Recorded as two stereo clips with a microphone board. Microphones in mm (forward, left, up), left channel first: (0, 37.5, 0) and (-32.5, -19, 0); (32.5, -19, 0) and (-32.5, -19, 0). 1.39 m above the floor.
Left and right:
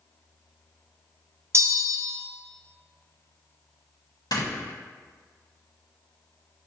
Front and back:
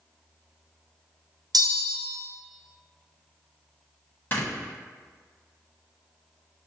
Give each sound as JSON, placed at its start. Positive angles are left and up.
{"t": 1.5, "sound": "a bell", "azimuth_deg": -170, "distance_m": 0.5}
{"t": 4.3, "sound": "snoring", "azimuth_deg": 60, "distance_m": 1.1}